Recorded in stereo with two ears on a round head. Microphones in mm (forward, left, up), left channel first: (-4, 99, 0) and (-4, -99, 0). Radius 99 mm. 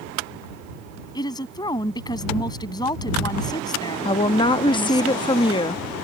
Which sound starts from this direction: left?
A woman speaking, at 4.0 s.